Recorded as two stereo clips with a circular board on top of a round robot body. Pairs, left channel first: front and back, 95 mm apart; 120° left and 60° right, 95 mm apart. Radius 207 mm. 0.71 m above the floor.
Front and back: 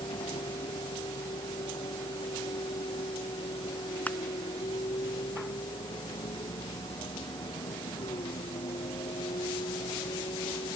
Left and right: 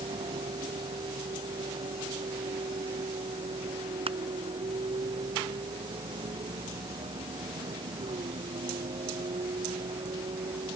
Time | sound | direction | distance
0.0 | a vehicle | 35° right | ?
4.1 | crushing | 75° right | ?